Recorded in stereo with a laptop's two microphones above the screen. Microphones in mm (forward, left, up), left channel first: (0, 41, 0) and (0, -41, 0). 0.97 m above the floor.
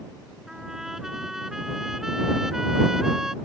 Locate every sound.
0.5 s a trumpet: 5° right (ahead or behind)